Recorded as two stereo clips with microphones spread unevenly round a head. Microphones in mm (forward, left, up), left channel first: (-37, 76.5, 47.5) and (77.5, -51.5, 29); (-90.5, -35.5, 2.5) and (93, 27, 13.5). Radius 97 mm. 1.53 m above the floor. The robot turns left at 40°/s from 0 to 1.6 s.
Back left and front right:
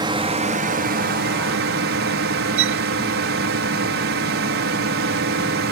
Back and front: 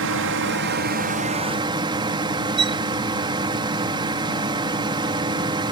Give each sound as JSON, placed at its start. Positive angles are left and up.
{"t": 0.0, "sound": "a drone", "azimuth_deg": 15}
{"t": 2.6, "sound": "a violin", "azimuth_deg": -45}